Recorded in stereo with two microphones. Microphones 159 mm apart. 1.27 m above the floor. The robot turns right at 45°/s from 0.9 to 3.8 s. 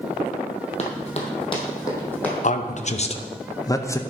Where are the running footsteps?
45° left (ahead or behind), 2 m; by 2.3 s 5° left (ahead or behind), 2.5 m.